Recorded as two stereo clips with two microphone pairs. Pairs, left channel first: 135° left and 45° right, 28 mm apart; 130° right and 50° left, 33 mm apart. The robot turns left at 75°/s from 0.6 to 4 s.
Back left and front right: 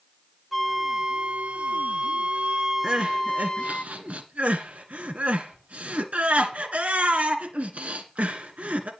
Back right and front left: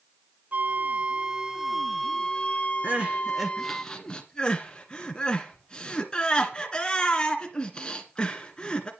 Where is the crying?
15° left, 1.5 m; by 8.9 s 70° right, 1.5 m.